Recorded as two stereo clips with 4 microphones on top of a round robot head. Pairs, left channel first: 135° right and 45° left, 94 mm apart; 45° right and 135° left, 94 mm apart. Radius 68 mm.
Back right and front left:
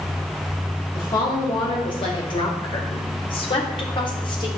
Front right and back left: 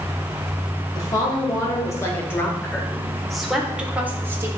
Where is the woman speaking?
90° right, 2.5 m; by 4.5 s 165° right, 1.6 m.